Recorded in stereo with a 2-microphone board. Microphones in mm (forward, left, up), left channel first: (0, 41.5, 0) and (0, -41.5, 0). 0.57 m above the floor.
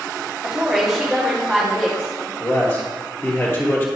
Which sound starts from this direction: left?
A man speaking, at 2.4 s.